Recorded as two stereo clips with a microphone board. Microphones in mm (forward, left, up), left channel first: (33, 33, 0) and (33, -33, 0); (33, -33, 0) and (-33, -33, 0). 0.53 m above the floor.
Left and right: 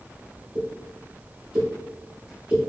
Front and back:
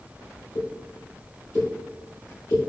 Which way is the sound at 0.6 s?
15° right.